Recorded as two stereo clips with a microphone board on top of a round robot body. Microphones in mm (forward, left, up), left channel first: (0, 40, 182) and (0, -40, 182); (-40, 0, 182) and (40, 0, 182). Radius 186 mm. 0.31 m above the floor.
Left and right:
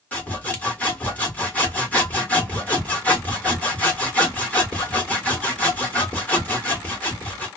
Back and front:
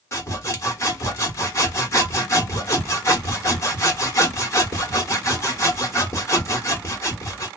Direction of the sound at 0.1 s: 150° left.